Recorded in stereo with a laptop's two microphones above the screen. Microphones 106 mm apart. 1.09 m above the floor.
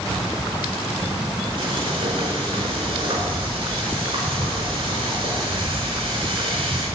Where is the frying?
55° right (ahead or behind), 4.5 m.